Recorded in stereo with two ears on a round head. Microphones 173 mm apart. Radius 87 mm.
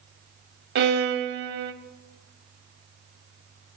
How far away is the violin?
About 0.7 m.